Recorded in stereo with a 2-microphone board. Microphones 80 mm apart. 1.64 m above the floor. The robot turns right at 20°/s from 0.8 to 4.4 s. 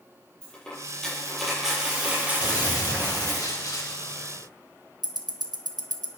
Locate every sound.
0.4 s a dropped coin: 170° left, 7 m; by 3.4 s 135° right, 7 m
2.4 s a gunshot: 80° left, 1.9 m; by 4.5 s 120° left, 1.9 m
5.0 s ticking: 55° right (ahead or behind), 1.1 m